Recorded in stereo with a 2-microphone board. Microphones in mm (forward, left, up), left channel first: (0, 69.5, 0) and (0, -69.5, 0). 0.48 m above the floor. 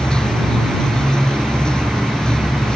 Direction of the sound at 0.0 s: 5° left (ahead or behind).